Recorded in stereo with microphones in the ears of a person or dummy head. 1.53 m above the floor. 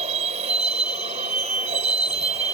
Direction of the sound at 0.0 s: 35° right (ahead or behind).